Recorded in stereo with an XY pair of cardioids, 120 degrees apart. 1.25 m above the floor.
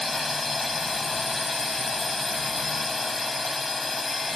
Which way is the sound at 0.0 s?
15° left.